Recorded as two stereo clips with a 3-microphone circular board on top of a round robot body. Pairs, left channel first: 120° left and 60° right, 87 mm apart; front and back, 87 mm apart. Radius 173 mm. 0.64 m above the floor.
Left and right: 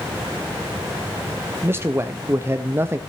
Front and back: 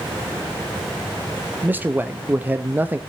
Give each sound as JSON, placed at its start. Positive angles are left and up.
{"t": 1.6, "sound": "a man speaking", "azimuth_deg": -115, "distance_m": 0.9}